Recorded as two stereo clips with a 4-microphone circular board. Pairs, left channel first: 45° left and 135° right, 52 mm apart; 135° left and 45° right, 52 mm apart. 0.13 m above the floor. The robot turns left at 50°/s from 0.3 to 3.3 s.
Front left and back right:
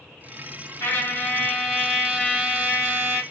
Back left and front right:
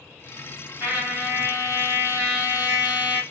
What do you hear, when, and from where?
0.8 s a trumpet: 5° left, 2 m; by 3.2 s 115° right, 2 m